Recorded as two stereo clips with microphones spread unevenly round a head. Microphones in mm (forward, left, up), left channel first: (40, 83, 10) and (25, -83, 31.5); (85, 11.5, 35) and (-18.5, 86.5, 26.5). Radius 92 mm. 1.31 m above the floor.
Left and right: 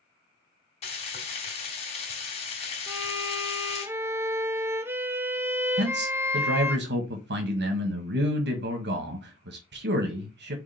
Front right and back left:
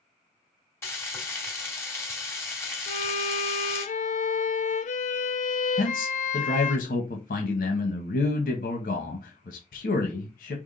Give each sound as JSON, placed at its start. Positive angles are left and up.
{"t": 0.8, "sound": "frying", "azimuth_deg": 30, "distance_m": 2.5}
{"t": 2.9, "sound": "a violin", "azimuth_deg": -15, "distance_m": 0.9}
{"t": 5.8, "sound": "a man speaking", "azimuth_deg": -75, "distance_m": 1.4}